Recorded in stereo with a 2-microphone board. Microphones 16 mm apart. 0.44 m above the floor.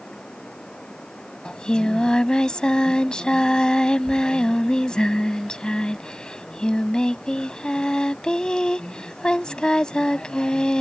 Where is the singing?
75° left (ahead or behind).